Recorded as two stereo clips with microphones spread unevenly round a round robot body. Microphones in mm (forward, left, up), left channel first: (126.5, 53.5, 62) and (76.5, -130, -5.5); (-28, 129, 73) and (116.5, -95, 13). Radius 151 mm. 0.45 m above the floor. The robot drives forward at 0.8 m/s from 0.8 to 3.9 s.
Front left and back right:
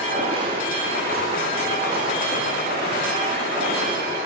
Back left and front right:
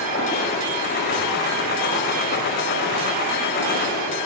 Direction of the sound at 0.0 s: 175° right.